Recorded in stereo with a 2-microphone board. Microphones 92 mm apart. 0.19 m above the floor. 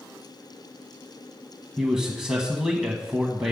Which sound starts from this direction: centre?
A man speaking, at 1.8 s.